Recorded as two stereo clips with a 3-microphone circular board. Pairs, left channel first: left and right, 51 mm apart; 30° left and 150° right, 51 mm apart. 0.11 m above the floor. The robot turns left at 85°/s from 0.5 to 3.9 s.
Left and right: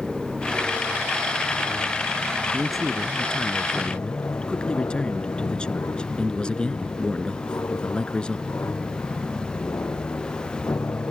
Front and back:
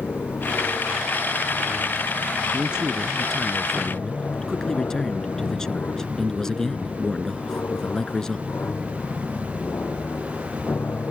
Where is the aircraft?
5° right; by 11.1 s 65° left.